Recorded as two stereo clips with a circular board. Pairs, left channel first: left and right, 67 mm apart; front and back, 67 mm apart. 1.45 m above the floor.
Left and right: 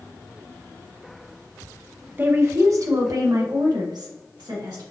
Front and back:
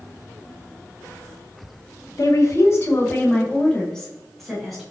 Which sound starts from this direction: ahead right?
A woman speaking, at 2.2 s.